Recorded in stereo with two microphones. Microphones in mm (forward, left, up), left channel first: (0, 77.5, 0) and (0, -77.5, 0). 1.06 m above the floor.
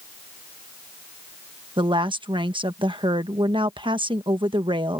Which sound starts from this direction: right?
A woman speaking, at 1.8 s.